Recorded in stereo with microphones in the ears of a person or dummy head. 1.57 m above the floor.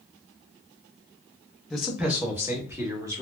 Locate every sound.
1.7 s a man speaking: 5° left (ahead or behind), 0.6 m; by 3.2 s 15° right (ahead or behind), 1.3 m